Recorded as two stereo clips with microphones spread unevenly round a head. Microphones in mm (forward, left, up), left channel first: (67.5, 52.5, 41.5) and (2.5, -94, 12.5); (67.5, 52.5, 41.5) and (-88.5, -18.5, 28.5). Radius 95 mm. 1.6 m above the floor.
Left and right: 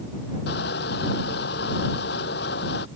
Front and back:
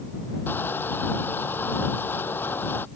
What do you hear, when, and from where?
0.5 s crushing: 100° left